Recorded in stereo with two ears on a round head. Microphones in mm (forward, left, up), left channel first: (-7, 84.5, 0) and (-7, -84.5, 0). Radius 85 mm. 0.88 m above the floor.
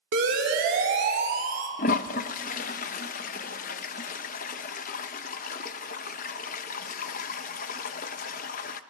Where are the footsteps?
I don't hear footsteps.